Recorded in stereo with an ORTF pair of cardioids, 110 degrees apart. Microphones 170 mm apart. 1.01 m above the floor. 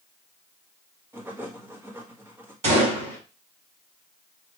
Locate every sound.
1.1 s writing: 15° right, 1.4 m
2.6 s a gunshot: 40° right, 4 m